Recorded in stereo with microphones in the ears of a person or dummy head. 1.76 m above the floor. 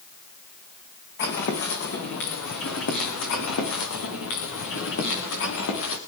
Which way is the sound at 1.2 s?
55° left (ahead or behind).